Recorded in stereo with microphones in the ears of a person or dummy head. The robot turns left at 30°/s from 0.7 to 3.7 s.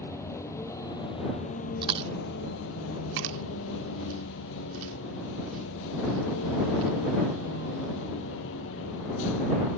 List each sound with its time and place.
0.0 s a vehicle: 165° left; by 9.8 s 75° left
1.8 s chewing: 30° right (ahead or behind); by 6.9 s 85° right